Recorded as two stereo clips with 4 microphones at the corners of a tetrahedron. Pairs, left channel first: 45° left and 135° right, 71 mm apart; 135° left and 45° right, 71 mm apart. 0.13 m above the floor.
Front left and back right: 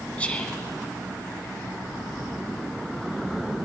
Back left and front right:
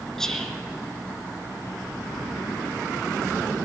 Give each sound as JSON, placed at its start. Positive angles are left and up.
{"t": 0.2, "sound": "whispering", "azimuth_deg": 70, "distance_m": 1.1}